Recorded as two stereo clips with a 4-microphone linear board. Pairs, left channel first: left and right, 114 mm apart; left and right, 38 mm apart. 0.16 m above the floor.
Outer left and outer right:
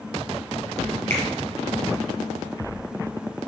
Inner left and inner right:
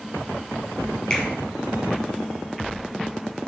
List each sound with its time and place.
1.1 s a finger snap: 15° left (ahead or behind), 3.5 m